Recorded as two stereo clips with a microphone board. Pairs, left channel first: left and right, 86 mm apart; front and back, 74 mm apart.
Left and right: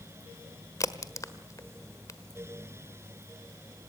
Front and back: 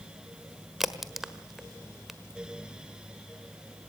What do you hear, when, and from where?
0.8 s a crack: 95° left, 1.4 m